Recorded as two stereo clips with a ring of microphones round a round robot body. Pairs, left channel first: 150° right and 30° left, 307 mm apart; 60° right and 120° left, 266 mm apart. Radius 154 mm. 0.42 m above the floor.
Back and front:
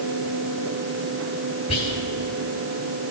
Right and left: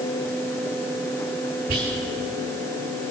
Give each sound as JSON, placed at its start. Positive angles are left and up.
{"t": 1.7, "sound": "whispering", "azimuth_deg": 150, "distance_m": 2.5}